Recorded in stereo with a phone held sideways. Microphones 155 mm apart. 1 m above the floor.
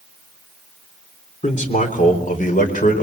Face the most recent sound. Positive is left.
turn(degrees=60)  # may be behind; listen again after turning